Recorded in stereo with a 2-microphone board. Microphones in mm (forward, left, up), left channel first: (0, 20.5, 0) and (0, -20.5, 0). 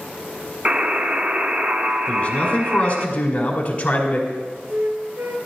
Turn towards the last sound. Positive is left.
turn(degrees=-65)  # may be behind; listen again after turning